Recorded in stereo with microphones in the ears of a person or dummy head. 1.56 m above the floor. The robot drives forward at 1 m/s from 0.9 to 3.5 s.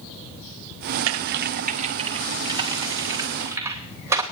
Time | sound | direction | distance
1.1 | typing on a keyboard | 80° right | 0.7 m